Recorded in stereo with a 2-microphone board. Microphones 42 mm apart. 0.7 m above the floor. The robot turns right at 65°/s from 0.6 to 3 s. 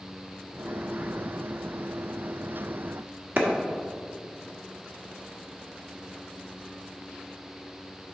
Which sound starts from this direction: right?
A clap, at 3.4 s.